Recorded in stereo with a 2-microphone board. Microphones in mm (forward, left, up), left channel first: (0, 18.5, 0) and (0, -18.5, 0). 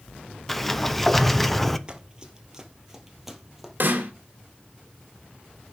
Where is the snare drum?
60° right (ahead or behind), 2.5 m.